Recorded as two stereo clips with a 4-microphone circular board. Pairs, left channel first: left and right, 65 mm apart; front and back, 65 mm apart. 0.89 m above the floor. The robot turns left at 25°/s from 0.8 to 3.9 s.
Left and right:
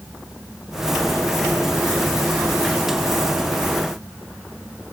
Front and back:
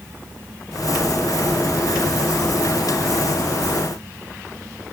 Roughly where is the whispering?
I don't hear whispering.